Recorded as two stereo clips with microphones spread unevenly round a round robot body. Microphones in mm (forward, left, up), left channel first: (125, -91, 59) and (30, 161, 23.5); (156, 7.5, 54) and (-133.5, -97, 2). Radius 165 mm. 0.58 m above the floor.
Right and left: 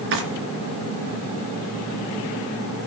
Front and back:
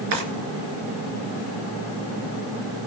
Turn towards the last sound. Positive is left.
turn(degrees=160)